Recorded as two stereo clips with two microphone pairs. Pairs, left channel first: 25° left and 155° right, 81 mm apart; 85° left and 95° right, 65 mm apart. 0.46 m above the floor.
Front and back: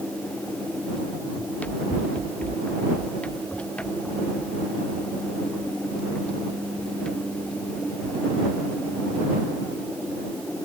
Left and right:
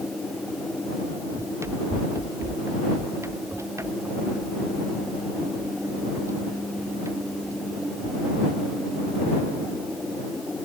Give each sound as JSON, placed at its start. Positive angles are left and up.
{"t": 1.4, "sound": "running footsteps", "azimuth_deg": -50}